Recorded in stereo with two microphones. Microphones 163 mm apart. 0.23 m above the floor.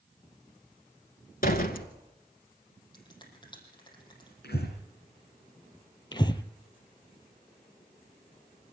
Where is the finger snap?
30° left (ahead or behind), 6.5 m.